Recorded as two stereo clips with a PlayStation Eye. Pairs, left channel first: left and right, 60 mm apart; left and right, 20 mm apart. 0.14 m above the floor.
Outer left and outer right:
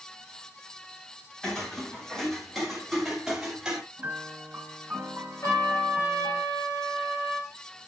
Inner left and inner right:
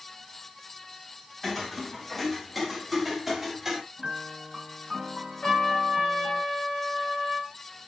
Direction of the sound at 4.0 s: 30° right (ahead or behind).